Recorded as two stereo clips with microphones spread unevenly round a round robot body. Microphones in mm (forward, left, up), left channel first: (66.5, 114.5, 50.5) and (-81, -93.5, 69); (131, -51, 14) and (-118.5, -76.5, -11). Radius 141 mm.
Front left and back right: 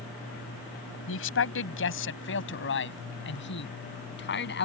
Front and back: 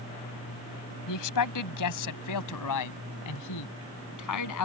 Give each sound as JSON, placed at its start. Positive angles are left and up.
{"t": 1.1, "sound": "a man speaking", "azimuth_deg": 10}